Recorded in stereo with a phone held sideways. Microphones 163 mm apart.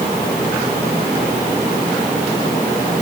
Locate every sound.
Only background noise.